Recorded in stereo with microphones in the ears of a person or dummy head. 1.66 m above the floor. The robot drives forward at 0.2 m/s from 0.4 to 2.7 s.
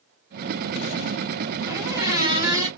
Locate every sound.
1.7 s a squeak: 15° right (ahead or behind), 1.1 m; by 2.7 s 10° right (ahead or behind), 1.3 m